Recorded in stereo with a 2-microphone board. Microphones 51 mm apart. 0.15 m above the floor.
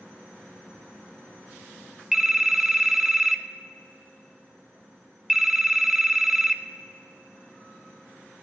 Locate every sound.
2.1 s a phone ringing: 10° right (ahead or behind), 0.6 m